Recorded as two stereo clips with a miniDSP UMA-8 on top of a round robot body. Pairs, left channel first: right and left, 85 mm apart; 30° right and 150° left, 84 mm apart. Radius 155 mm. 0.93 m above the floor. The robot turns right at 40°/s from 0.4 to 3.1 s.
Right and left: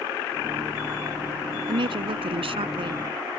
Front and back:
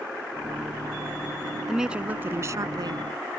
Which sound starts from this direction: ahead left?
A woman speaking, at 1.7 s.